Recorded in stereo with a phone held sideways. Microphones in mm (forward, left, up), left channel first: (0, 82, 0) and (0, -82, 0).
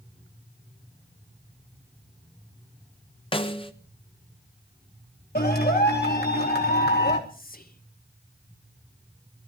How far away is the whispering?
About 1.0 m.